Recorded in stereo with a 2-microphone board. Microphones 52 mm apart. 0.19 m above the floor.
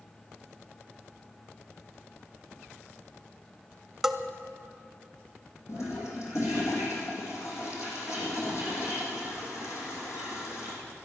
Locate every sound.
4.0 s a bell: 5° right (ahead or behind), 0.6 m
5.7 s a toilet flushing: 65° left (ahead or behind), 4 m